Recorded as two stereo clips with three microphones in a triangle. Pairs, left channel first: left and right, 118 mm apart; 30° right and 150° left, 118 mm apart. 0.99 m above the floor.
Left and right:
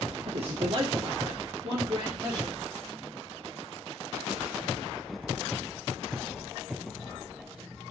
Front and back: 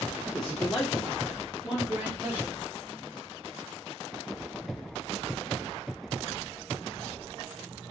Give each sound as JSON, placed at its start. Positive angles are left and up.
{"t": 0.3, "sound": "a man speaking", "azimuth_deg": -110, "distance_m": 0.5}